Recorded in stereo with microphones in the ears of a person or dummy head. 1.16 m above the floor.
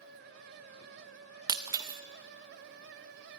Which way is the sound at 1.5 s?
20° right (ahead or behind).